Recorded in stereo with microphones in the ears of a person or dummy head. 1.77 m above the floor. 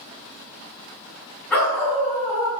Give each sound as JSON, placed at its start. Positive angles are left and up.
{"t": 1.5, "sound": "a dog barking", "side_deg": 10, "distance_m": 6.5}